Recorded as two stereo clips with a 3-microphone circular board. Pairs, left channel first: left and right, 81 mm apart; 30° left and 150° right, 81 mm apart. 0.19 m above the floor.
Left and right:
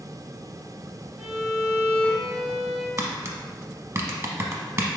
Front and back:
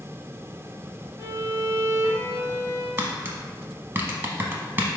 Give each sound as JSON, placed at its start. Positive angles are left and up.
{"t": 1.2, "sound": "a violin", "azimuth_deg": -165, "distance_m": 1.3}
{"t": 3.0, "sound": "tapping", "azimuth_deg": -110, "distance_m": 0.5}